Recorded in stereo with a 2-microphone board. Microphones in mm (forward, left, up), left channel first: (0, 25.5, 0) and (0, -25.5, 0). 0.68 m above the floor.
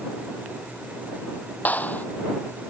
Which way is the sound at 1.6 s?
35° left (ahead or behind).